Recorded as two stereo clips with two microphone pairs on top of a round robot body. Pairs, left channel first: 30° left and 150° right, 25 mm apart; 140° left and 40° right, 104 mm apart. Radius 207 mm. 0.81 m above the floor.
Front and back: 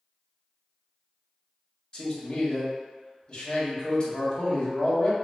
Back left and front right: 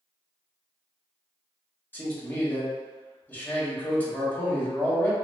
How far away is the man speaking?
About 1.2 m.